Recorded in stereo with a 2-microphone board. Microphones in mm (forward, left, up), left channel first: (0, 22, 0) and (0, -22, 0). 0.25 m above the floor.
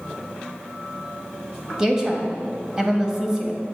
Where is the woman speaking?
15° right (ahead or behind), 1.0 m.